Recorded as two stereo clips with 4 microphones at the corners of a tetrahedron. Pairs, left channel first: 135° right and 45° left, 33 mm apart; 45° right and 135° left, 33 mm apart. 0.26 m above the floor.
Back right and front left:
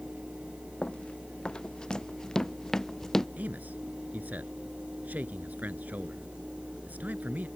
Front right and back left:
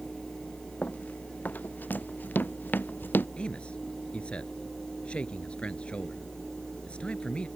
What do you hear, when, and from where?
0.8 s running footsteps: 85° right; by 3.3 s 60° right
3.4 s a man speaking: 10° left